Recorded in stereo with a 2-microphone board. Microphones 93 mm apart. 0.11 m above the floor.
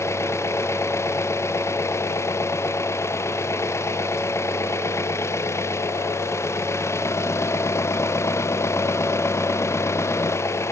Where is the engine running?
30° left (ahead or behind).